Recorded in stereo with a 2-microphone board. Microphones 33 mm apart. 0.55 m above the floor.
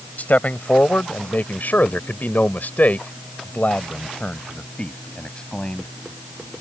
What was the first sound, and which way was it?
A man speaking, 55° left (ahead or behind).